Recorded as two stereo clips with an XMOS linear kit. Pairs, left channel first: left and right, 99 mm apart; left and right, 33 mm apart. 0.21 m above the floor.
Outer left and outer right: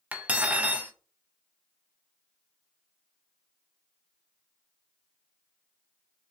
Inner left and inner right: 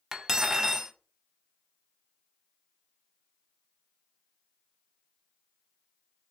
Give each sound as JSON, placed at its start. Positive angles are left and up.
{"t": 0.1, "sound": "cutlery clinking", "side_deg": -15, "distance_m": 0.5}